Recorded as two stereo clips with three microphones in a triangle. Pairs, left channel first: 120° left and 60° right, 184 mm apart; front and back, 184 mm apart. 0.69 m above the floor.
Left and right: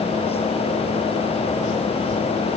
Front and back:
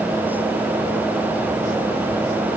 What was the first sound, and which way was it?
Only background noise.